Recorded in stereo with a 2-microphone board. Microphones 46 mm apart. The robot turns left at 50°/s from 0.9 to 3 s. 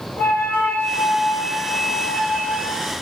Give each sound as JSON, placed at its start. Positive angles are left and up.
{"t": 0.2, "sound": "a flute", "azimuth_deg": 90, "distance_m": 1.6}